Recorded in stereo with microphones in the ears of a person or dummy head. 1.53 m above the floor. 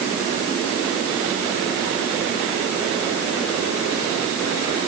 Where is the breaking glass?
I don't hear breaking glass.